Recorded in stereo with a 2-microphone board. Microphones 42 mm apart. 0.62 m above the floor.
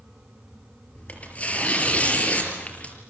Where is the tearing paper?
30° left (ahead or behind), 5.5 m.